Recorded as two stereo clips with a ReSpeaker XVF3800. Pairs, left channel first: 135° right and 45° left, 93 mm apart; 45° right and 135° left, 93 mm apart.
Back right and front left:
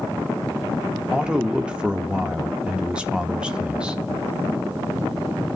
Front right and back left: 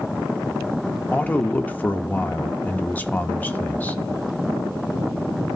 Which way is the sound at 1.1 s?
15° right.